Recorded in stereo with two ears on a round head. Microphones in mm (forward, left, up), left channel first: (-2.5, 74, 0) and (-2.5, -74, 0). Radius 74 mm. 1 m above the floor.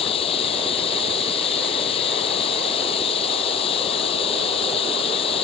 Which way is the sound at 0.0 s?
35° left (ahead or behind).